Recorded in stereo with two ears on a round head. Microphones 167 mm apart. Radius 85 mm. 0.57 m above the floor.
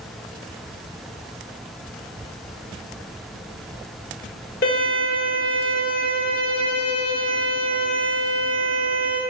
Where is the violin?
50° left (ahead or behind), 1.6 m.